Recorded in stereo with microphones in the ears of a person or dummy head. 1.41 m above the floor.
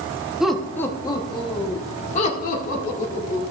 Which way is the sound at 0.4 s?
5° right (ahead or behind).